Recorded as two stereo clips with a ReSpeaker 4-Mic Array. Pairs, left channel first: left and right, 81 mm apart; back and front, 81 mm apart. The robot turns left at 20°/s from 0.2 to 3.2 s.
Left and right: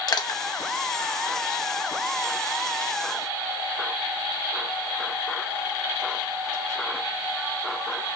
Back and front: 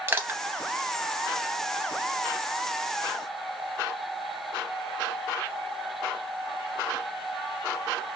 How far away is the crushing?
About 0.6 m.